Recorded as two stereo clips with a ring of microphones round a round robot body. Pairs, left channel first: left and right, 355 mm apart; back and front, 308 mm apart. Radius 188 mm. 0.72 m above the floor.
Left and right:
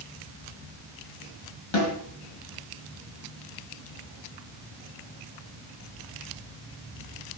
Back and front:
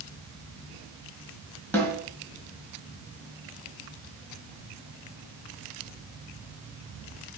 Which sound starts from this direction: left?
A snare drum, at 1.7 s.